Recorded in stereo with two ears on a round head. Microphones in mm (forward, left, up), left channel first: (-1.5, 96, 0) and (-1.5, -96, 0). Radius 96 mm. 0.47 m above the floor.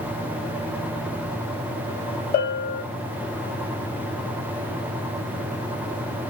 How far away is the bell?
About 3 m.